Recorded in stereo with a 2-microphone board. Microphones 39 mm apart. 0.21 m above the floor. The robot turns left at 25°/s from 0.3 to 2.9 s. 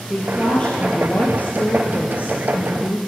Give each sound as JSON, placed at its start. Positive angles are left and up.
{"t": 0.1, "sound": "a woman speaking", "azimuth_deg": 160, "distance_m": 4.0}